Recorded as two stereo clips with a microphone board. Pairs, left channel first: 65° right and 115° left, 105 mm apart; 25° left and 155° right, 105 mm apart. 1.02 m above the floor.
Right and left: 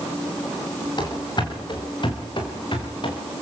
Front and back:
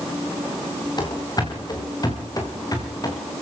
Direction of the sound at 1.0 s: 25° right.